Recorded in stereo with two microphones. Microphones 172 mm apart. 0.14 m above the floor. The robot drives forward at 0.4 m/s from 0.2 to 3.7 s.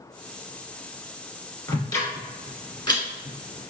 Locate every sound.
1.7 s ticking: 20° left (ahead or behind), 1.7 m; by 3.7 s 30° left (ahead or behind), 1.3 m